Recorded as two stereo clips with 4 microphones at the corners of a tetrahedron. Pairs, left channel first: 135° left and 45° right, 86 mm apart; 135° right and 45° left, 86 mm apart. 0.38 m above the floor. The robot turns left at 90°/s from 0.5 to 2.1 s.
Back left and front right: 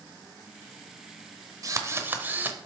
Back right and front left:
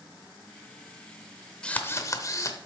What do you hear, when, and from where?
1.6 s a drill: 60° right, 0.9 m; by 2.7 s 100° right, 0.9 m